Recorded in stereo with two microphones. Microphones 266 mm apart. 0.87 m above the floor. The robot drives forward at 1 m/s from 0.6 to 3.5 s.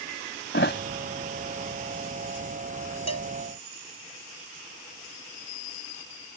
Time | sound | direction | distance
0.5 | a thud | 45° left (ahead or behind) | ?
3.1 | a cowbell | 75° right (ahead or behind) | ?